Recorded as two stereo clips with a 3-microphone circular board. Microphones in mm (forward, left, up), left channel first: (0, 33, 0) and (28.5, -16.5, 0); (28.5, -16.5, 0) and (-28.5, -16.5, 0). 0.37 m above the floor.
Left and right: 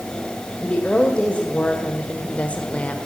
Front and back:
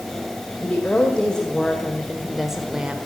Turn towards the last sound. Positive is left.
turn(degrees=140)